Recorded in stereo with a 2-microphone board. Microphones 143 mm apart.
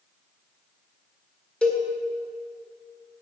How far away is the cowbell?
About 1.7 m.